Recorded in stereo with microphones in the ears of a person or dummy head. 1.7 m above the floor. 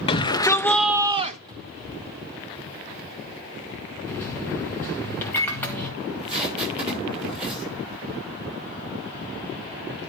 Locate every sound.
0.1 s a shout: 30° left (ahead or behind), 1.0 m; by 1.4 s 45° right (ahead or behind), 0.6 m
1.5 s a cupboard door: 25° right (ahead or behind), 1.9 m
4.1 s a microwave: 10° left (ahead or behind), 1.9 m
6.0 s tape being pulled: 30° right (ahead or behind), 7.5 m